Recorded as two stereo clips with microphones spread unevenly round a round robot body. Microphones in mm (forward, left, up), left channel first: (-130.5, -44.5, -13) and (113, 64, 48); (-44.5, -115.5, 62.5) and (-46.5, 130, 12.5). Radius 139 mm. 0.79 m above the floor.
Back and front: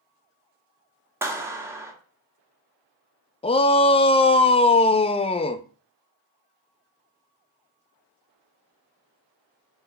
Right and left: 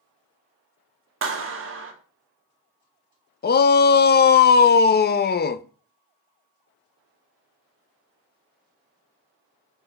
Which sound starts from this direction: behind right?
A shout, at 3.4 s.